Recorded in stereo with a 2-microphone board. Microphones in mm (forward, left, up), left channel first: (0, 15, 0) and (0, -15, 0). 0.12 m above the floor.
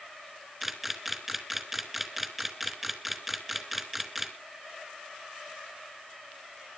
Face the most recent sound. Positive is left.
turn(degrees=-5)  # may be behind; listen again after turning